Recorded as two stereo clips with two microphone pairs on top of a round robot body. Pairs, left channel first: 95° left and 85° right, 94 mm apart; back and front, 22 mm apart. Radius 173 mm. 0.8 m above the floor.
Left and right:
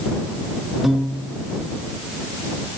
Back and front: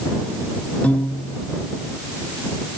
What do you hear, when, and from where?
0.8 s a piano: 170° right